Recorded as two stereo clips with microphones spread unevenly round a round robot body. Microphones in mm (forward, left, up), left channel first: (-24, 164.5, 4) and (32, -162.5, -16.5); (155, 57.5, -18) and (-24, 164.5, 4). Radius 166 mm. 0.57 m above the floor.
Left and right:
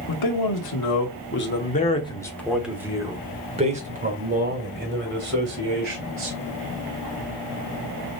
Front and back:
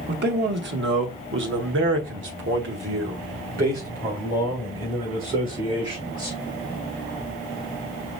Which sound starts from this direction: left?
A man speaking, at 0.1 s.